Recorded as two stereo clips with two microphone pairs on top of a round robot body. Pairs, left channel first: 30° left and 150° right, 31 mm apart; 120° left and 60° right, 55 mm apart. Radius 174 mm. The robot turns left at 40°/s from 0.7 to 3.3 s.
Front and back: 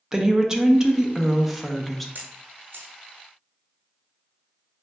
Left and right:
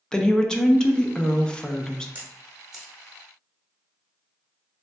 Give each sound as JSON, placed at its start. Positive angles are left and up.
{"t": 0.1, "sound": "a woman speaking", "azimuth_deg": 155, "distance_m": 0.7}
{"t": 2.1, "sound": "a camera shutter", "azimuth_deg": -120, "distance_m": 0.7}